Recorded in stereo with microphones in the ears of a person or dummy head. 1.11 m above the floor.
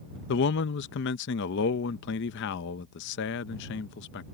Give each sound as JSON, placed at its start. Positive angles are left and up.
{"t": 0.3, "sound": "a man speaking", "side_deg": 60}